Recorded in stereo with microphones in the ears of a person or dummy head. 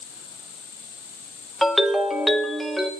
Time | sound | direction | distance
1.6 | a ringtone | centre (ahead or behind) | 0.9 m